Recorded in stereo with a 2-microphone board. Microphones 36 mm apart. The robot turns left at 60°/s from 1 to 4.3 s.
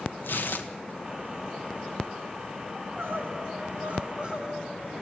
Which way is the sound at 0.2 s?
65° left (ahead or behind).